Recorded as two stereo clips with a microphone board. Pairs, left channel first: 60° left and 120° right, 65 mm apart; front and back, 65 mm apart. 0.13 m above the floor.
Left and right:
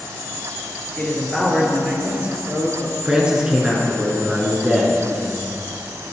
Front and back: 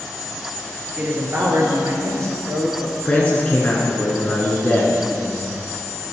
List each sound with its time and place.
1.0 s a man speaking: 125° left, 2 m; by 3.0 s 160° right, 2.5 m
3.0 s a man speaking: 55° right, 1.5 m